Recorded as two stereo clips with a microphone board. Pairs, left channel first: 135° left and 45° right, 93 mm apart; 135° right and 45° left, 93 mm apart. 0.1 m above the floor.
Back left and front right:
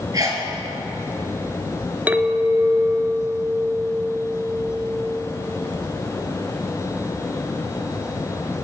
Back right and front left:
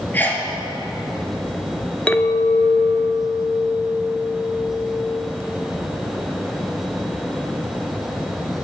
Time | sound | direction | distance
0.1 | a sneeze | 75° right | 1.8 m
2.1 | a clink | 85° right | 0.6 m